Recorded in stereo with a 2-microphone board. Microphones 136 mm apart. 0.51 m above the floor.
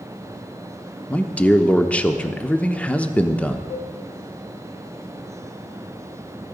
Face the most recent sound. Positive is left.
turn(degrees=55)  # may be behind; listen again after turning